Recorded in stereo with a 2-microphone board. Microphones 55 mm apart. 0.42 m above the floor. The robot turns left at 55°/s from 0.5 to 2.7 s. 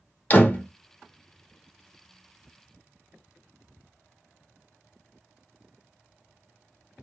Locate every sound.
0.3 s a door slam: 35° left (ahead or behind), 0.7 m; by 0.7 s 30° left (ahead or behind), 0.7 m